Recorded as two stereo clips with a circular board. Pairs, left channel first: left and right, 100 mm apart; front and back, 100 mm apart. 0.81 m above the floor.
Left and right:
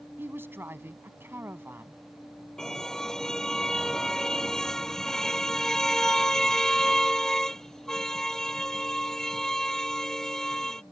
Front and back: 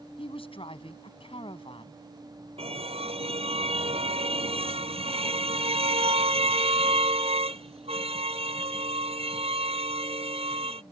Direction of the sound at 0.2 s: 20° right.